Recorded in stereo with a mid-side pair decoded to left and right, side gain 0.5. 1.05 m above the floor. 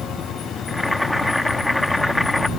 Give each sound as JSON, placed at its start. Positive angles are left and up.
{"t": 0.7, "sound": "boiling", "azimuth_deg": 10}